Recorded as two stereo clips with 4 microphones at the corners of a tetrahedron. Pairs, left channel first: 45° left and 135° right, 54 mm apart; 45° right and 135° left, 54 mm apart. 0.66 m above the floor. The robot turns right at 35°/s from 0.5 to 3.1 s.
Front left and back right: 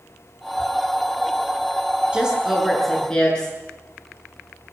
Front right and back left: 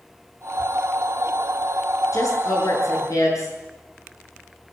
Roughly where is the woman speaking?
Ahead right.